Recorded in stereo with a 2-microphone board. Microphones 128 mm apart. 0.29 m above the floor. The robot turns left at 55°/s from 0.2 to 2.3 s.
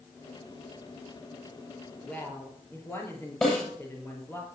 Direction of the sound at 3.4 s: 5° left (ahead or behind).